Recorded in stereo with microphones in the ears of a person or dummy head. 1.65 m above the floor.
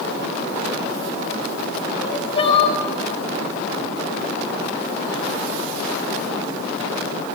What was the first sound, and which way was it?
Crying, 35° left (ahead or behind).